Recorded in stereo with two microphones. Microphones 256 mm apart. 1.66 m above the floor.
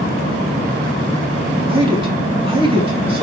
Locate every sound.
1.7 s a man speaking: 20° right (ahead or behind), 3.5 m